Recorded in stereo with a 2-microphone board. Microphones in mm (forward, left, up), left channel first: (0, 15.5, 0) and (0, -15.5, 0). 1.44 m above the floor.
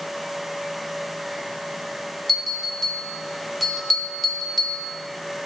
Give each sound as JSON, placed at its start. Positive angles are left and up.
{"t": 2.3, "sound": "a bell", "side_deg": 0, "distance_m": 1.1}